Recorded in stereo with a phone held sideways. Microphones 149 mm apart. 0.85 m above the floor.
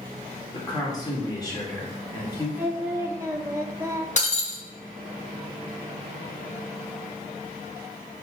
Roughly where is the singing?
Centre.